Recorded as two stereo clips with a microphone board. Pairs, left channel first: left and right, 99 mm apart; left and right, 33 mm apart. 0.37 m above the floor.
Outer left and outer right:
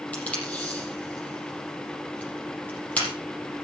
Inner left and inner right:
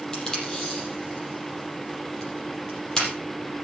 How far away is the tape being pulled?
About 6 m.